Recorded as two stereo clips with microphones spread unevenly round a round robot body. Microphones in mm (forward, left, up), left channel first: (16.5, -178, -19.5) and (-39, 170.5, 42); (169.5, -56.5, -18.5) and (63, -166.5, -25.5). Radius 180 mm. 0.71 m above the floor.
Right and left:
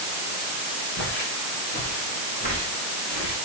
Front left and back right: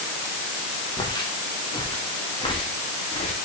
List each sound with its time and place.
1.0 s footsteps: 20° right, 4.5 m; by 3.4 s 5° right, 7 m